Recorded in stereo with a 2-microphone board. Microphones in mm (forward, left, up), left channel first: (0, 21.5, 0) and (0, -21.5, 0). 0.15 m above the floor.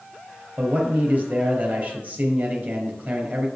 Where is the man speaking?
45° right (ahead or behind), 4.5 m.